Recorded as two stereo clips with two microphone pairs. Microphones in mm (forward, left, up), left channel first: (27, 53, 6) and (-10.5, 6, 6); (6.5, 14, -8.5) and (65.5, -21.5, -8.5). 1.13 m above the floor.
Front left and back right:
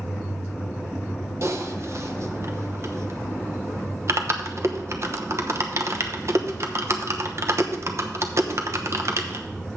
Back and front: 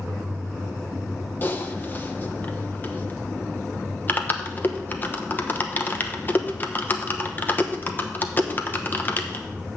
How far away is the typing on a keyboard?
About 0.9 m.